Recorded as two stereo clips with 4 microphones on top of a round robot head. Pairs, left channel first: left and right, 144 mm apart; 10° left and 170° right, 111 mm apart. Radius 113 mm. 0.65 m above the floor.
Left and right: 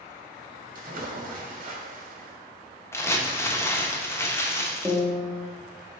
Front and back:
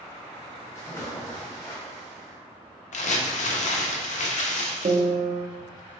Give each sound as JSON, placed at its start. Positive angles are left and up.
{"t": 0.8, "sound": "a splash", "azimuth_deg": -60, "distance_m": 0.8}
{"t": 2.9, "sound": "crumpling", "azimuth_deg": 15, "distance_m": 0.8}
{"t": 4.8, "sound": "a piano", "azimuth_deg": -175, "distance_m": 0.7}